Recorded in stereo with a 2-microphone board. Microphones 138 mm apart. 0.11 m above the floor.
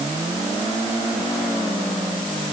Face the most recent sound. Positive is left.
No sound to turn to.